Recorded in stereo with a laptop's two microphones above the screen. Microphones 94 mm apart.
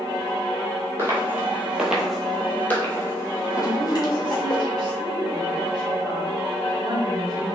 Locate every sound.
1.0 s footsteps: 25° right (ahead or behind), 1.2 m; by 4.6 s 45° left (ahead or behind), 1.8 m
3.6 s a woman speaking: 45° right (ahead or behind), 0.9 m